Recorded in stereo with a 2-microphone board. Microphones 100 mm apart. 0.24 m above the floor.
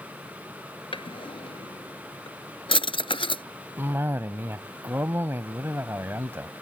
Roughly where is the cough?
Right.